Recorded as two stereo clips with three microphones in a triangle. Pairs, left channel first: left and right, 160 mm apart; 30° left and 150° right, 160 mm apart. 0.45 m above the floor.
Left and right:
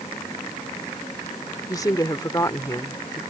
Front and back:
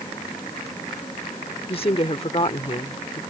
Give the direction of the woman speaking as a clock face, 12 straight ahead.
11 o'clock.